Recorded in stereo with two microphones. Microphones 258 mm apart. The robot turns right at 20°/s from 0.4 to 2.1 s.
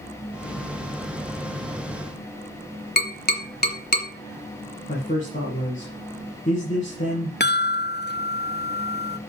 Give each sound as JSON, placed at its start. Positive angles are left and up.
{"t": 3.0, "sound": "tapping", "side_deg": 35, "distance_m": 1.8}
{"t": 4.9, "sound": "a man speaking", "side_deg": 30, "distance_m": 2.5}
{"t": 7.4, "sound": "a chime", "side_deg": 40, "distance_m": 0.5}